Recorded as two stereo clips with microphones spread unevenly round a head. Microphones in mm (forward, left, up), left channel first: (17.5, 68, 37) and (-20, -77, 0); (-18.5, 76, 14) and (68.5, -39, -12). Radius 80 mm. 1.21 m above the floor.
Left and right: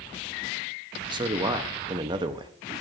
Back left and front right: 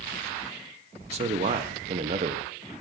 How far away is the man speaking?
About 0.7 m.